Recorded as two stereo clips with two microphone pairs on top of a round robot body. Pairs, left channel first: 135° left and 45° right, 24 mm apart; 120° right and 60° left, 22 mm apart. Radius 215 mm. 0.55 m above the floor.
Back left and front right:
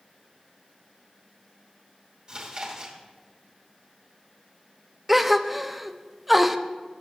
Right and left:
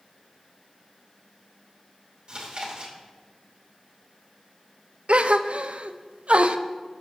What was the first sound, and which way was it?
Chewing, 10° left.